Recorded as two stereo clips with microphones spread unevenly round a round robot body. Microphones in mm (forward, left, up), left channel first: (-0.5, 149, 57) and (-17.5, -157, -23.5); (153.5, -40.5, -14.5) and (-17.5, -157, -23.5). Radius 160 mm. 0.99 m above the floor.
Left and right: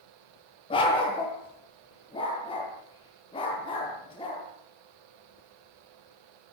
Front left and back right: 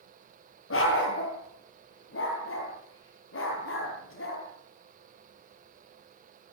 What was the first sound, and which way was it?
A dog barking, 10° left.